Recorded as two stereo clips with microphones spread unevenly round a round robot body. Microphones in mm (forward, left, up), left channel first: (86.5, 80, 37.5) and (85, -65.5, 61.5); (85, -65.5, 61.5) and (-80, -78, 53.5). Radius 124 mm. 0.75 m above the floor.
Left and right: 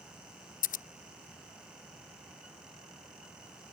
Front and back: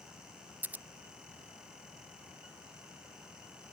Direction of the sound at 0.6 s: 105° left.